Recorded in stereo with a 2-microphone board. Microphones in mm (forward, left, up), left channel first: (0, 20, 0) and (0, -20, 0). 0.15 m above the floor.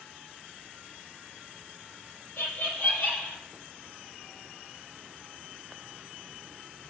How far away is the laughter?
About 4 m.